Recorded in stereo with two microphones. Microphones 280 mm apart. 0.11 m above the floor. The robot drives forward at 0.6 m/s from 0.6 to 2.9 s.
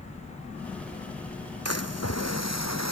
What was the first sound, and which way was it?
A splash, 60° left (ahead or behind).